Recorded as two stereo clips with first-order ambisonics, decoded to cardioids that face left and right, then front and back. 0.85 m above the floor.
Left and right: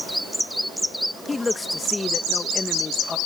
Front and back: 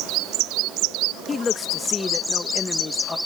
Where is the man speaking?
35° left.